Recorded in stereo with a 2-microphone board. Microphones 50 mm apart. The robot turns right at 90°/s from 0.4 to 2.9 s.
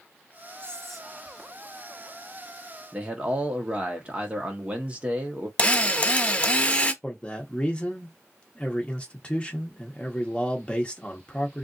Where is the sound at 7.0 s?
25° left (ahead or behind), 0.8 m.